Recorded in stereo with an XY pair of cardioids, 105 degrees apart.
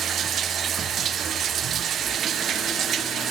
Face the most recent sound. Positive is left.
turn(degrees=-60)